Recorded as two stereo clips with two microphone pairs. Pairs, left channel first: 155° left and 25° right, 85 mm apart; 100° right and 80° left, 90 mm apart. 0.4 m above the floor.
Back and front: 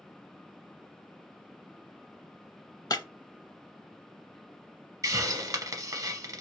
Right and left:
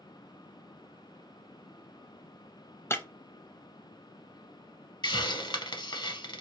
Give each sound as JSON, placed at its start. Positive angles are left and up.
{"t": 2.9, "sound": "breaking glass", "azimuth_deg": -165, "distance_m": 0.5}
{"t": 5.0, "sound": "a hiss", "azimuth_deg": -70, "distance_m": 0.6}